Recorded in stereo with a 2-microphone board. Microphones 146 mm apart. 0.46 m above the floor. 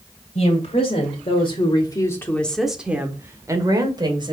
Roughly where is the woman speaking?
Left.